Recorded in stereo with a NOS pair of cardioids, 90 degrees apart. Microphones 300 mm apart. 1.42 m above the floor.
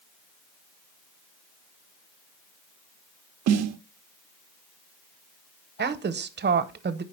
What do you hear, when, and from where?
3.5 s a snare drum: 60° right, 0.5 m
5.8 s a woman speaking: 35° right, 0.8 m